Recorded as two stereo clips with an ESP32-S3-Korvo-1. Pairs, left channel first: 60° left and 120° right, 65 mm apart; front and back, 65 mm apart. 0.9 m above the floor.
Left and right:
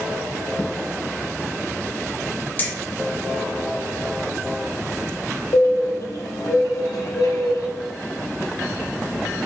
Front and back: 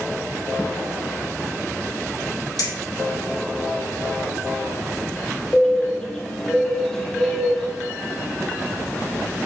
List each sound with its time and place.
0.6 s footsteps: 45° left, 4 m
2.6 s keys jangling: 5° left, 2 m
5.5 s a bird: 80° left, 1.2 m